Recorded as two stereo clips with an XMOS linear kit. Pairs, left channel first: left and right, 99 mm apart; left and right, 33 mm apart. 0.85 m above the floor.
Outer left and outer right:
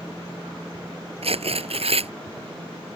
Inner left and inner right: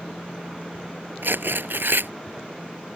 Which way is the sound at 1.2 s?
85° right.